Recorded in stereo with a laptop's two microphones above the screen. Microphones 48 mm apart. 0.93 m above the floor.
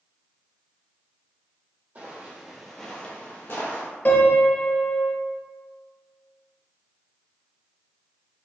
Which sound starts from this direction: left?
A piano, at 4.0 s.